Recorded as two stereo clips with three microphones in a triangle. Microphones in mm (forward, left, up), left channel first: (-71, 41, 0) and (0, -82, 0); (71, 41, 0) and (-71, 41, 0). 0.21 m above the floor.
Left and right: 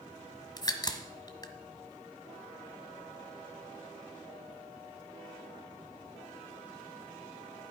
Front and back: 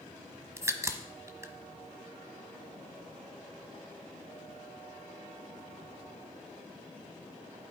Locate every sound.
0.6 s a crack: 135° left, 1.3 m